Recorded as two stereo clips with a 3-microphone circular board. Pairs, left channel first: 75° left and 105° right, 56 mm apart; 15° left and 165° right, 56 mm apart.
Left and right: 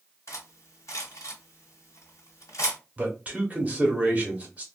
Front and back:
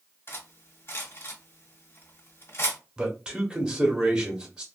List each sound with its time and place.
0.3 s cutlery clinking: 55° left, 1.5 m
3.0 s a man speaking: 110° right, 1.1 m